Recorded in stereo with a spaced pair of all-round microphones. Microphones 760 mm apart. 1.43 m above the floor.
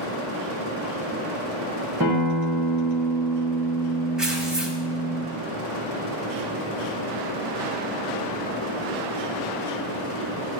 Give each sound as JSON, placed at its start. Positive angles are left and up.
{"t": 2.0, "sound": "a guitar", "side_deg": -30, "distance_m": 1.5}
{"t": 4.2, "sound": "tearing paper", "side_deg": 0, "distance_m": 1.5}